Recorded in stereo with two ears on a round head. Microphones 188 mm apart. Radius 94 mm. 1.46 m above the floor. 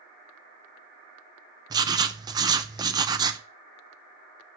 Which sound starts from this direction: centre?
Writing, at 1.7 s.